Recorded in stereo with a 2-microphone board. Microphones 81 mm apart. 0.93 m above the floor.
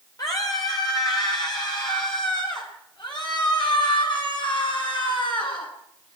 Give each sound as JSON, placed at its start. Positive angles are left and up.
{"t": 0.2, "sound": "a scream", "side_deg": 45, "distance_m": 3.5}